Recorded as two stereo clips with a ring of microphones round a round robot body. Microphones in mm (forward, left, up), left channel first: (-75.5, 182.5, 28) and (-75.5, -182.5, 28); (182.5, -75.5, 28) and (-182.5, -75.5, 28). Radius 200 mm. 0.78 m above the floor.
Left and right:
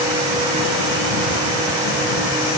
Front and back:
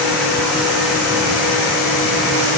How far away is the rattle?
I don't hear a rattle.